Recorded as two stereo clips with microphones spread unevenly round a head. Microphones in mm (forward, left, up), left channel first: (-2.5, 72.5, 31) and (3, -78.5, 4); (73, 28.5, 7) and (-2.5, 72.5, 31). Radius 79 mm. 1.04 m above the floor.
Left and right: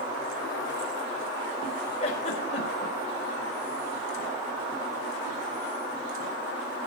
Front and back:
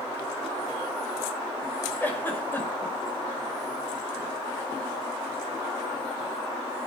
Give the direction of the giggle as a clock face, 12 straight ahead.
11 o'clock.